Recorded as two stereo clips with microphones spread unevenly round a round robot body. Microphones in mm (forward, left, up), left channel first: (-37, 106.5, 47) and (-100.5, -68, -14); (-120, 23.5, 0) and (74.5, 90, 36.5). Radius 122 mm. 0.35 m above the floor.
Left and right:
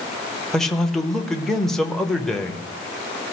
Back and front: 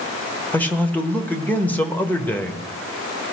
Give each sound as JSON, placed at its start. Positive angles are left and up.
{"t": 0.5, "sound": "a man speaking", "azimuth_deg": -140, "distance_m": 0.8}